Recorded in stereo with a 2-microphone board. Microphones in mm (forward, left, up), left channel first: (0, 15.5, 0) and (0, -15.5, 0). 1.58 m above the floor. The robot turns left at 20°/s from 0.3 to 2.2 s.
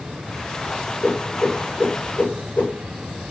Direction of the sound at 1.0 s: 45° left (ahead or behind).